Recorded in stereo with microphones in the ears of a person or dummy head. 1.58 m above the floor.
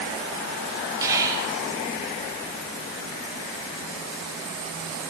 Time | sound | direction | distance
1.0 | whispering | 15° right (ahead or behind) | 1.6 m